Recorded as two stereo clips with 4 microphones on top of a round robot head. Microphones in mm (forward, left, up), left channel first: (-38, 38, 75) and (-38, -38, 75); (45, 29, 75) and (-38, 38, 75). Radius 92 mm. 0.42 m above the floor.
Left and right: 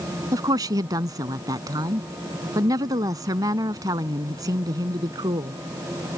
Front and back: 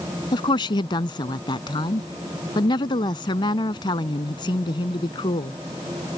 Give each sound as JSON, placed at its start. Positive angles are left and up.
{"t": 0.3, "sound": "a woman speaking", "azimuth_deg": -45}